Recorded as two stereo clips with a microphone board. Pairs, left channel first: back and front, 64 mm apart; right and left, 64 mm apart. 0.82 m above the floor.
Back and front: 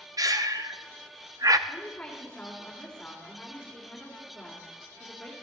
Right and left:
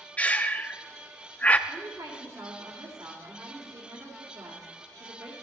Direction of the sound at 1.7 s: 105° left.